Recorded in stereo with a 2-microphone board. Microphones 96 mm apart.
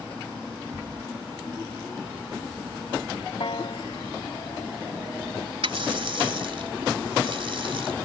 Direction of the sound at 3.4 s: 65° left (ahead or behind).